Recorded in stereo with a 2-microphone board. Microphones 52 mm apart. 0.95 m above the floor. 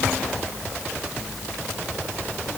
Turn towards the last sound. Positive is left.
No sound to turn to.